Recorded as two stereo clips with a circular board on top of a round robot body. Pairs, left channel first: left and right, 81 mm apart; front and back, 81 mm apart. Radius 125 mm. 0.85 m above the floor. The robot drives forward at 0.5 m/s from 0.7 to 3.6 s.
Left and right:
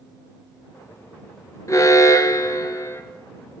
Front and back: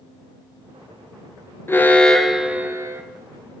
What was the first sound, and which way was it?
An alarm, 50° left.